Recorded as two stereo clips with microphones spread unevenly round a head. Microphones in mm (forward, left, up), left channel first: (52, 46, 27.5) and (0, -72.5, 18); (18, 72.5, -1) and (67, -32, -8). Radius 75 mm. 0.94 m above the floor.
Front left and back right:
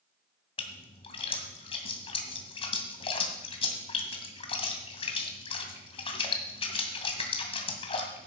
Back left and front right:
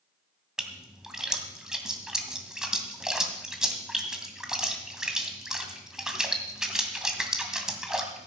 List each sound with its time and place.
0.6 s a splash: 20° left, 2.5 m